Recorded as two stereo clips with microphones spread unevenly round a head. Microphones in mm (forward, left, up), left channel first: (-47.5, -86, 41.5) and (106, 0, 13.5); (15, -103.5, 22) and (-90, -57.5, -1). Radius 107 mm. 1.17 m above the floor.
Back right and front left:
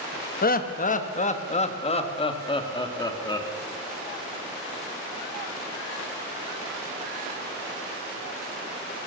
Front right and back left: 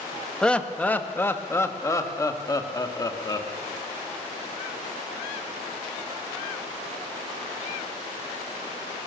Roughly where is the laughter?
Right.